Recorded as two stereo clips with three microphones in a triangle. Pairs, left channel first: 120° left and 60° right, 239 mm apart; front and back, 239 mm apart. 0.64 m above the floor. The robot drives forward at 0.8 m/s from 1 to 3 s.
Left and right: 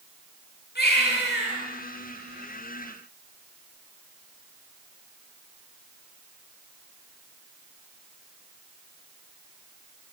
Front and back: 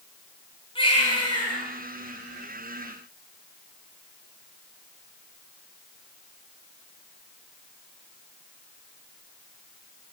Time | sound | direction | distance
0.8 | a baby crying | 70° left | 8.5 m